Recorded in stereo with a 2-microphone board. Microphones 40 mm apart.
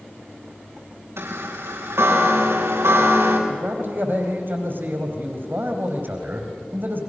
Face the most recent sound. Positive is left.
turn(degrees=-50)  # may be behind; listen again after turning